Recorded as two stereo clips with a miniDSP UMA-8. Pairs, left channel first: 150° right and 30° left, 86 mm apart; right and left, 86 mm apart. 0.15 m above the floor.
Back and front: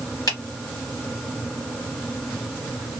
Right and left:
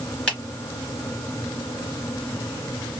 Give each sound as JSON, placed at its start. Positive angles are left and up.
{"t": 0.3, "sound": "a finger snap", "azimuth_deg": -165, "distance_m": 2.0}